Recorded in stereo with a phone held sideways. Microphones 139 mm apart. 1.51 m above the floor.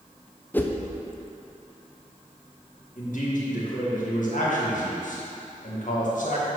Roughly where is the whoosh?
Centre.